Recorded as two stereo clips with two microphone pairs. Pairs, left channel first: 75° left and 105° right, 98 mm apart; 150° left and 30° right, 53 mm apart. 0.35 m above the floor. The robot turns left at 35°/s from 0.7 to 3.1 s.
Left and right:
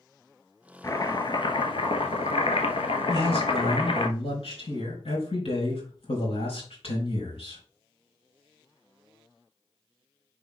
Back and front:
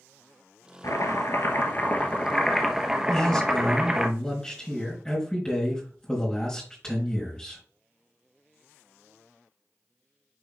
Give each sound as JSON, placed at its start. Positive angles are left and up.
{"t": 0.8, "sound": "chopping", "azimuth_deg": 130, "distance_m": 1.2}
{"t": 3.1, "sound": "a man speaking", "azimuth_deg": 75, "distance_m": 4.0}